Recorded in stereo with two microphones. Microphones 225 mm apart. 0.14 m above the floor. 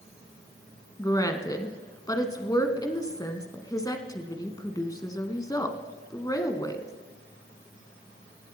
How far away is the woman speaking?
About 1.0 m.